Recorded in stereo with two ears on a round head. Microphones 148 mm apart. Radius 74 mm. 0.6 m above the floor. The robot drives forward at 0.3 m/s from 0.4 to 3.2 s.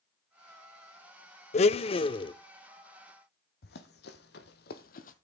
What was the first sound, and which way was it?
A blender, 40° left (ahead or behind).